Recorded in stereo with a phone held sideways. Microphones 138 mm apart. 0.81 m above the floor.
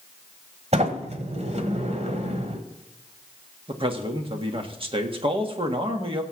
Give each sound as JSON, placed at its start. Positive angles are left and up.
{"t": 0.7, "sound": "a sliding door", "side_deg": -50, "distance_m": 1.4}
{"t": 3.7, "sound": "a man speaking", "side_deg": -40, "distance_m": 1.5}